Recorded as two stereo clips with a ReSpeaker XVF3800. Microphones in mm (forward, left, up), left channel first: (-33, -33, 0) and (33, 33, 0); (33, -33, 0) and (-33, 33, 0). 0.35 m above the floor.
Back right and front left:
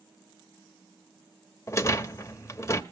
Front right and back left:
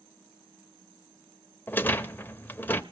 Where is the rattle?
100° right, 0.8 m.